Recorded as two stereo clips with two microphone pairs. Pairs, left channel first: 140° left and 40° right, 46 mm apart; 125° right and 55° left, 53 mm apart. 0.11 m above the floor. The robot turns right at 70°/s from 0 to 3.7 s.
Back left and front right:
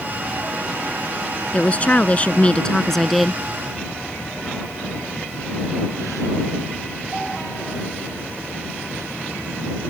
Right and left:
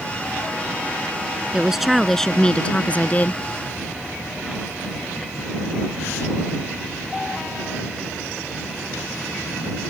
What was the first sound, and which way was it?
A woman speaking, 115° left.